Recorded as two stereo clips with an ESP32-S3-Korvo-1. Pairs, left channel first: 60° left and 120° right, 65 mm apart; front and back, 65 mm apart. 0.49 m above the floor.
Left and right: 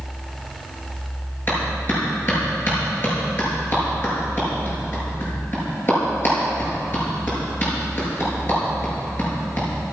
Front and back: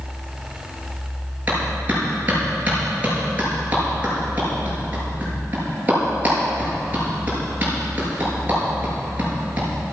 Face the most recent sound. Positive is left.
turn(degrees=115)